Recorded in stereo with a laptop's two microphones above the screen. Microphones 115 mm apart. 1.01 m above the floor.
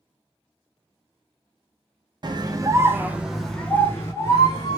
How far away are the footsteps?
No footsteps in this recording.